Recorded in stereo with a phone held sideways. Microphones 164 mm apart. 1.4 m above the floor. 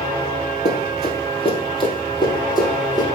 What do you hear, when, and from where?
0.7 s running footsteps: 40° left (ahead or behind), 2 m; by 3.0 s 20° left (ahead or behind), 3 m